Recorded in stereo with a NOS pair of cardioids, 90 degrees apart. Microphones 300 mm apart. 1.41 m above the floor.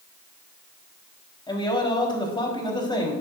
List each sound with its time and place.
1.5 s a man speaking: 15° left, 3.5 m